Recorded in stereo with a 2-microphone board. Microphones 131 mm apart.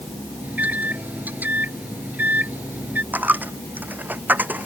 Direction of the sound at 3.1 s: 15° right (ahead or behind).